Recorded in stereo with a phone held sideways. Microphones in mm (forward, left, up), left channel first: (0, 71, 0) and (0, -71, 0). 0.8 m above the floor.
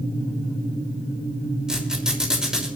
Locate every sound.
1.7 s a squeak: 5° right (ahead or behind), 6 m